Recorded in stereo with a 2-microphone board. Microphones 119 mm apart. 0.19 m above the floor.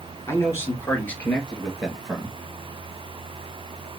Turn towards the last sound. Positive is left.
turn(degrees=-5)  # may be behind; listen again after turning